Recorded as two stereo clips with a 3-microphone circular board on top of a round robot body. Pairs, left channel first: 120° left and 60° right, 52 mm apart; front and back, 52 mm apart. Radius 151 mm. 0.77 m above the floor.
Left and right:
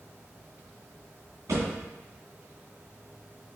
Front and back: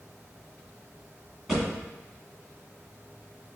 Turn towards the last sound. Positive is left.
turn(degrees=-85)